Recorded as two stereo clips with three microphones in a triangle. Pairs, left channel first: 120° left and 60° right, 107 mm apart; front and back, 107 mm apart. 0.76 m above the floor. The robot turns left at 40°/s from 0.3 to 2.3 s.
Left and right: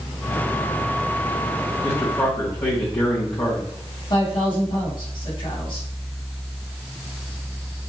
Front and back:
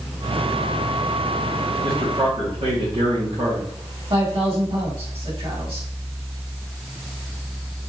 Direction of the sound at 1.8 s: 165° right.